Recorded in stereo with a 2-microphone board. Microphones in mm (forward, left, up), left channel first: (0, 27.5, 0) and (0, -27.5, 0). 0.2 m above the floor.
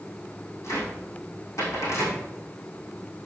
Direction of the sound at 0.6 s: 60° left (ahead or behind).